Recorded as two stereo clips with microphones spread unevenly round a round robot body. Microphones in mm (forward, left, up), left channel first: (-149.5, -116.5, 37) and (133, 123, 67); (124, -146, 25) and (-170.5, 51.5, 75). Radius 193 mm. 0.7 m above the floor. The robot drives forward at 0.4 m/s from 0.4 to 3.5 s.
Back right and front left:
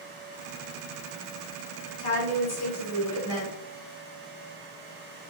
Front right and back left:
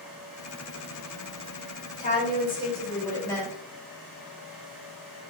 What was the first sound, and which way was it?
A woman speaking, 95° right.